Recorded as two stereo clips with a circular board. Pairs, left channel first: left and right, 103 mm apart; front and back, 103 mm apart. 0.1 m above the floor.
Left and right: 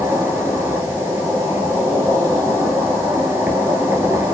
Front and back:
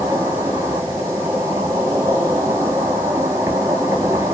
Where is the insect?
135° right, 0.9 m.